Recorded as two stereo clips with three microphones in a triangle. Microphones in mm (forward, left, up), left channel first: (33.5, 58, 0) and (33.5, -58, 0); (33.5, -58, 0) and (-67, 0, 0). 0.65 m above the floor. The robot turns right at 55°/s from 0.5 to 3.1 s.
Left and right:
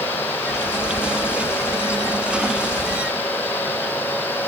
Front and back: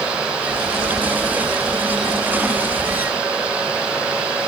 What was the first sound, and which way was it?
Only background noise.